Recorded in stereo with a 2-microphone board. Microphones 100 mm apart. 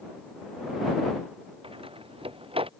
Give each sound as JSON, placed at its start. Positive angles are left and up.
{"t": 1.6, "sound": "a door slam", "side_deg": -70}